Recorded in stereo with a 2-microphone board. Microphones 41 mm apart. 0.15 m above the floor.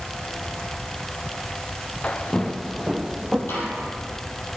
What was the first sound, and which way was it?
Footsteps, 40° left (ahead or behind).